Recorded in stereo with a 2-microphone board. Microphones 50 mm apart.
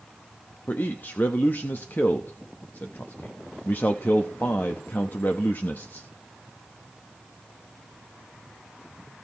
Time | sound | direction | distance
0.7 | a man speaking | 40° left (ahead or behind) | 0.8 m